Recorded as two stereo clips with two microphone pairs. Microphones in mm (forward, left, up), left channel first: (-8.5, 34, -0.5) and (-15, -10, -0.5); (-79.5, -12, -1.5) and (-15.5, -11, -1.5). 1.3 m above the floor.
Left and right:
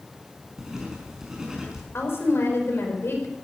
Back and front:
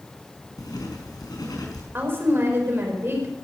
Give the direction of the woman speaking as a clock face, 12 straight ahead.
10 o'clock.